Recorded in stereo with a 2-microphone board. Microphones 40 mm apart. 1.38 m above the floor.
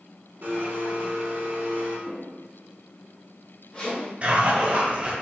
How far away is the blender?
About 1.6 m.